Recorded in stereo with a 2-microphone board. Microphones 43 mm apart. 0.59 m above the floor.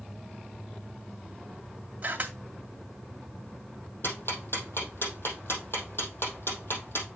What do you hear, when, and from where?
2.0 s a camera shutter: 40° right (ahead or behind), 2 m
4.0 s ticking: 70° left (ahead or behind), 3.5 m